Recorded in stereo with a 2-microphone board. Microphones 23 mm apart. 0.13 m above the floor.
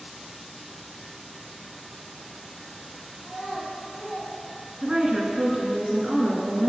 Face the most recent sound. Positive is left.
turn(degrees=-30)  # may be behind; listen again after turning